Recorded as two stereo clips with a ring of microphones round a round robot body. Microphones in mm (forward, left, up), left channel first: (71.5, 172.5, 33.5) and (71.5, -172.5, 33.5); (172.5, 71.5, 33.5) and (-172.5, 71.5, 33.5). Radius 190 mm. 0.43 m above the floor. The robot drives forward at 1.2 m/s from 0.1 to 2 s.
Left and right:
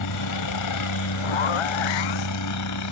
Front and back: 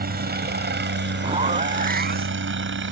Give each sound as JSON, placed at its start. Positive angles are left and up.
{"t": 0.0, "sound": "a helicopter", "azimuth_deg": 120}
{"t": 1.2, "sound": "a zipper", "azimuth_deg": 105}